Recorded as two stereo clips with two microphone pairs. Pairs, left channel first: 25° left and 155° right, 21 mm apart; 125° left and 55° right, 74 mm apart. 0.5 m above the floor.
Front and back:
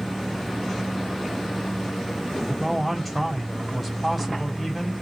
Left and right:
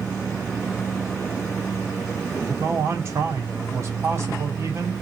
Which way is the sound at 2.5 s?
60° right.